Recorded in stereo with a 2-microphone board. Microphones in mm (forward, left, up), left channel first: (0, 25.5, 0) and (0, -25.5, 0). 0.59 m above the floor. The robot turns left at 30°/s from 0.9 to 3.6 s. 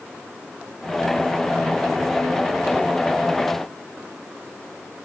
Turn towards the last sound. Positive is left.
No sound to turn to.